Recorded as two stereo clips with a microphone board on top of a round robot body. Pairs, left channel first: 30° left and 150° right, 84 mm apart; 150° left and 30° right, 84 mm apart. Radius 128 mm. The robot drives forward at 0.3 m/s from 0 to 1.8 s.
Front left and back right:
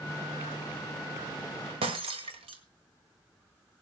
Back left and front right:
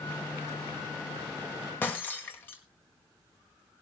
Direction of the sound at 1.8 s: 140° right.